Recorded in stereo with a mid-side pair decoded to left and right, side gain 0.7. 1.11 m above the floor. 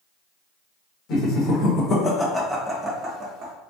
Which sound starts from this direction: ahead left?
Laughter, at 1.1 s.